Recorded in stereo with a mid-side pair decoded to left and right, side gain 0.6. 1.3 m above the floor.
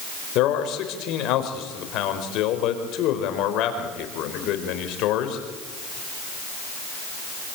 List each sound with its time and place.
0.3 s a man speaking: 65° left, 5 m